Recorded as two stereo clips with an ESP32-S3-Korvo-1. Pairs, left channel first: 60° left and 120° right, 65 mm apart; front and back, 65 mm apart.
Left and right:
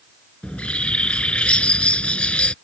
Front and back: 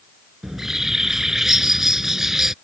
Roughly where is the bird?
Left.